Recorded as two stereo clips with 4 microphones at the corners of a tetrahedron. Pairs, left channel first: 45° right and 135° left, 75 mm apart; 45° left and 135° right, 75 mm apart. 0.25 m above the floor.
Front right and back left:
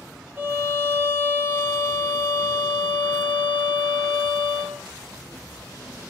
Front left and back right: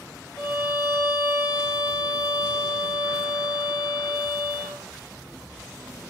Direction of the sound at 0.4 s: 75° left.